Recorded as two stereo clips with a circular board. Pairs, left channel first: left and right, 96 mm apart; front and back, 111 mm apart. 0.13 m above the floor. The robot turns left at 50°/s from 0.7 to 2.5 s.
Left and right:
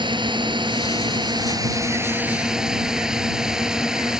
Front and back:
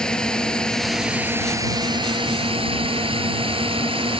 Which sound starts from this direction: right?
A drone, at 0.0 s.